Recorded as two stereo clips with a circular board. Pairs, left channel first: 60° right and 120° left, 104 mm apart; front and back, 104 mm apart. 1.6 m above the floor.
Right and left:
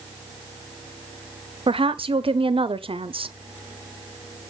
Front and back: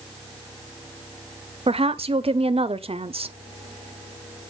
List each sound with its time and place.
1.7 s a woman speaking: 155° left, 0.6 m